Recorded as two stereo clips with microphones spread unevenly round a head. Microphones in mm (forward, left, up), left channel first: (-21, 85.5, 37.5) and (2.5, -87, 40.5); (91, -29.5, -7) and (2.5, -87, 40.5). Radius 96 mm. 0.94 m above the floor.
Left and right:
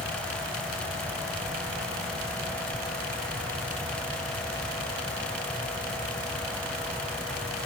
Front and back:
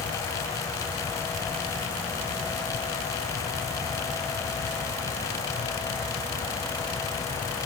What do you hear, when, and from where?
Only background noise.